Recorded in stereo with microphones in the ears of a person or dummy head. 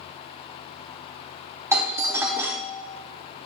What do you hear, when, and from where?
1.7 s a doorbell: 15° right (ahead or behind), 1.1 m